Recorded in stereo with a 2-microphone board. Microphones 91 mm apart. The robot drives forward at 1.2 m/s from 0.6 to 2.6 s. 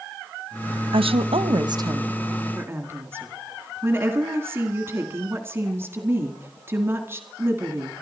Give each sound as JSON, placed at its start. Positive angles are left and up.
{"t": 0.9, "sound": "a woman speaking", "side_deg": -70, "distance_m": 0.8}